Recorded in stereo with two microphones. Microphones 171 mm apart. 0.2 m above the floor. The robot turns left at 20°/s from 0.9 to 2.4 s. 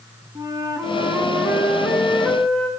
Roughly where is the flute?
Behind right.